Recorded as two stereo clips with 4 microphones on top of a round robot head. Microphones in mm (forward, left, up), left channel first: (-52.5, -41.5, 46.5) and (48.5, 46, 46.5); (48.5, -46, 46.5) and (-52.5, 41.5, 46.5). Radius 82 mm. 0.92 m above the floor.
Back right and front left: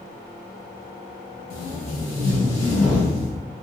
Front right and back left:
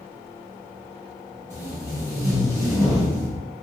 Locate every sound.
1.5 s tape being pulled: 155° right, 1.9 m